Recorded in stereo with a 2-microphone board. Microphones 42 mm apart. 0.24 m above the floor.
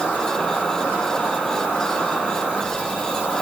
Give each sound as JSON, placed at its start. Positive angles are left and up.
{"t": 0.0, "sound": "an insect", "side_deg": 50, "distance_m": 2.5}